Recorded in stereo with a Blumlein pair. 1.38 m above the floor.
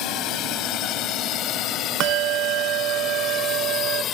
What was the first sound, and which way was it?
A drone, 35° left.